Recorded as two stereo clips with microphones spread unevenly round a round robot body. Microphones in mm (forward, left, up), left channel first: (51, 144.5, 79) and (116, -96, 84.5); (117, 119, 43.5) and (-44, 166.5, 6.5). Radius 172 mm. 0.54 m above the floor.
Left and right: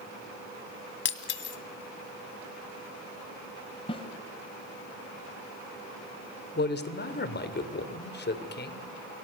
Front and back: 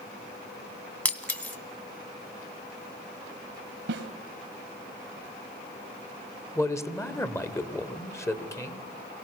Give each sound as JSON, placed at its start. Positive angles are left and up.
{"t": 1.1, "sound": "breaking glass", "azimuth_deg": 65, "distance_m": 2.0}
{"t": 3.9, "sound": "a snare drum", "azimuth_deg": 180, "distance_m": 0.9}
{"t": 6.5, "sound": "a man speaking", "azimuth_deg": 60, "distance_m": 2.5}